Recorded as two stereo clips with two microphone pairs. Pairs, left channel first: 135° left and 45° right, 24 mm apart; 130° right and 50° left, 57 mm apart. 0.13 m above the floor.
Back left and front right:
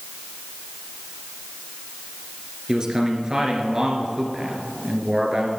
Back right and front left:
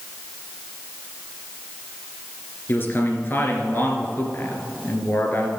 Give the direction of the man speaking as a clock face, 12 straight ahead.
3 o'clock.